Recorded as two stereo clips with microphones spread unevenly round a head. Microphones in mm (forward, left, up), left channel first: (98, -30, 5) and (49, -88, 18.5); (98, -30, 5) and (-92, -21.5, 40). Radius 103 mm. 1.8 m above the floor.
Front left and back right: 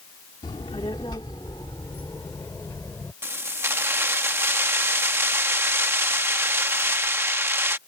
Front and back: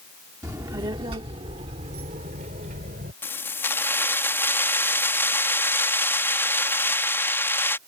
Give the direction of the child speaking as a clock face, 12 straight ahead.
8 o'clock.